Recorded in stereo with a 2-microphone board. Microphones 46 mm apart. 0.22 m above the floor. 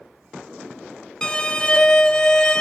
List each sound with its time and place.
1.2 s a violin: 15° left (ahead or behind), 0.8 m